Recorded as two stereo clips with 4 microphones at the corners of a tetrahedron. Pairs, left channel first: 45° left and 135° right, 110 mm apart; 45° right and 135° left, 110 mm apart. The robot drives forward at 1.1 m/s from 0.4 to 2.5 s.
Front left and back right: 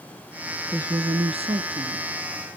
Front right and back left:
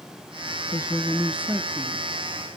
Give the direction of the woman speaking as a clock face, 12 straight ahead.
2 o'clock.